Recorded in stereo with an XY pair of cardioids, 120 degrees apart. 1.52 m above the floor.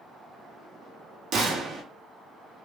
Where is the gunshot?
60° right, 1.1 m.